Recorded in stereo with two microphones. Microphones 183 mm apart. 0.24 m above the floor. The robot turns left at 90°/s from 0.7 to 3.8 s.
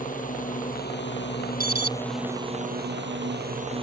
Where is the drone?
45° left (ahead or behind); by 3.8 s 30° right (ahead or behind).